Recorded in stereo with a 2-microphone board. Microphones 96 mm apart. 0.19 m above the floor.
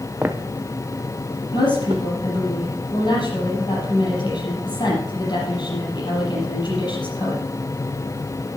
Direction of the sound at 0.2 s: 15° right (ahead or behind).